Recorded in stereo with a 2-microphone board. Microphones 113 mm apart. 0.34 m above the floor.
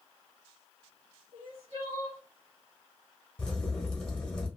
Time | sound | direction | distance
1.3 | crying | 50° right (ahead or behind) | 1.7 m
3.4 | a crack | 10° left (ahead or behind) | 1.3 m